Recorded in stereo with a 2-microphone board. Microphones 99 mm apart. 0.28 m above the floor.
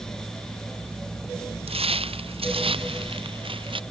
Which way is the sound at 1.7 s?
70° right (ahead or behind).